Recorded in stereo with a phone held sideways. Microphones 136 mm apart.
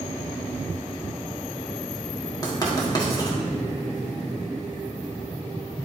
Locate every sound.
2.4 s writing: 30° left (ahead or behind), 1.3 m